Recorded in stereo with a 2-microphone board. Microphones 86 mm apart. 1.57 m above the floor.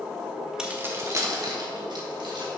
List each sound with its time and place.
0.6 s keys jangling: 10° right (ahead or behind), 1.1 m; by 2.5 s 60° right (ahead or behind), 2.5 m